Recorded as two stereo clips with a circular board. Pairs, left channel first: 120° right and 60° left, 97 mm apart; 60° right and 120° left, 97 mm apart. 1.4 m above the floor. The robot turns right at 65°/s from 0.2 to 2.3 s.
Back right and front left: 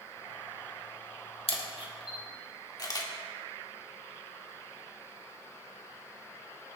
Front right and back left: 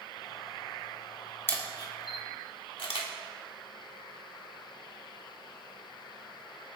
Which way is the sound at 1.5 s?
125° right.